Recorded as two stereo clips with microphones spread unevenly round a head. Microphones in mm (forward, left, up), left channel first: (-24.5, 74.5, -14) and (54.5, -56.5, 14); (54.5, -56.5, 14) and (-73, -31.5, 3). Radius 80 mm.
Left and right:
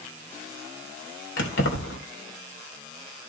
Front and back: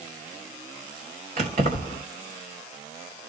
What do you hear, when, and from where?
1.4 s keys jangling: 120° left, 3 m